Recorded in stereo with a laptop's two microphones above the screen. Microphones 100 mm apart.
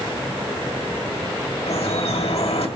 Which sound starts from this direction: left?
Dripping, at 1.7 s.